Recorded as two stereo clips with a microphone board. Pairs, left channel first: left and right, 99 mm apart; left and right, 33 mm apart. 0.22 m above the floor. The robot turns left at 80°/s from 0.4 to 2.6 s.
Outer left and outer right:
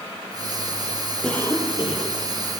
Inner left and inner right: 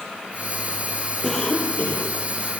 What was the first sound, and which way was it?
A cough, 175° left.